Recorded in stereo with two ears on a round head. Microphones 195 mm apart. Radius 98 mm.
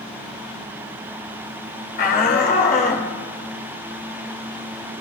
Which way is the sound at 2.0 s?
45° left (ahead or behind).